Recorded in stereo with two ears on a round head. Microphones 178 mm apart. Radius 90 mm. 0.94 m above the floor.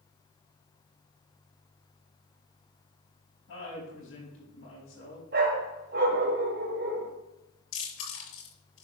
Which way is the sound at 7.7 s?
80° left.